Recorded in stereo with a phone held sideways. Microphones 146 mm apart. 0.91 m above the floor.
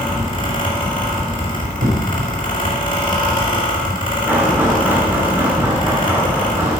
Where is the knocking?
15° right (ahead or behind), 2.5 m.